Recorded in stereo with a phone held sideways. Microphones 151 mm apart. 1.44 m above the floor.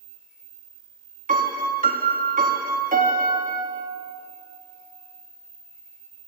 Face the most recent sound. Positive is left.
turn(degrees=-65)  # may be behind; listen again after turning